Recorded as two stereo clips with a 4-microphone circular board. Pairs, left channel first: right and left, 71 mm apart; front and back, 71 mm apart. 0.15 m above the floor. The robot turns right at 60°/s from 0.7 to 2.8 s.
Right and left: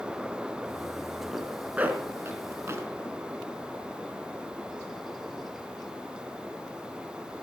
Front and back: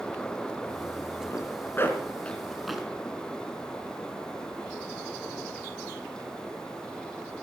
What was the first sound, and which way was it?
A zipper, 5° left.